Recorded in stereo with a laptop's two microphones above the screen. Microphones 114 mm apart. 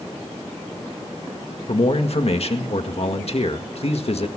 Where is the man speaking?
60° left (ahead or behind), 1.7 m.